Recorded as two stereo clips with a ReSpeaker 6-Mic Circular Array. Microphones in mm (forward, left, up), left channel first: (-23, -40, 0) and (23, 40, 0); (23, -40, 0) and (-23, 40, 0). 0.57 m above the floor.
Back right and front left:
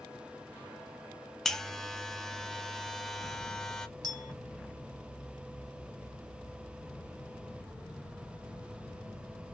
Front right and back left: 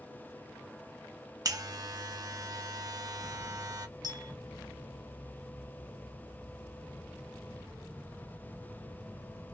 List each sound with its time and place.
1.4 s a buzzer: 155° left, 0.5 m
4.0 s a clink: 90° left, 1.1 m